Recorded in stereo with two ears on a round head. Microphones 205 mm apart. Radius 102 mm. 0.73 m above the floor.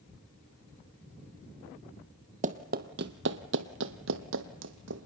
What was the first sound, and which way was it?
Running footsteps, 35° right (ahead or behind).